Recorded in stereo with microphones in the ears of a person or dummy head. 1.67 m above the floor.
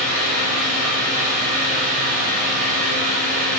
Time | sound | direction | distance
0.0 | a fan | 40° right (ahead or behind) | 0.9 m